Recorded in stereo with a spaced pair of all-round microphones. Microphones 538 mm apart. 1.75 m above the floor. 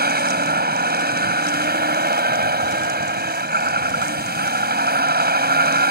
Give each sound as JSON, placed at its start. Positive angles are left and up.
{"t": 0.0, "sound": "a vehicle", "side_deg": -15}